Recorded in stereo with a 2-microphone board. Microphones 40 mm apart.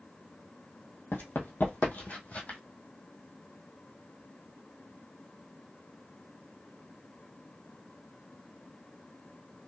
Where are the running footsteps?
65° left (ahead or behind), 1.9 m; by 2.6 s 40° left (ahead or behind), 2 m.